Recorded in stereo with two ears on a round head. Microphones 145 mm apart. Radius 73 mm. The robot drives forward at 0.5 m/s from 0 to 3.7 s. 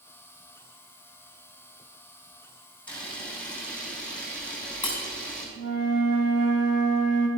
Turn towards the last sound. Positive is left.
turn(degrees=-75)  # may be behind; listen again after turning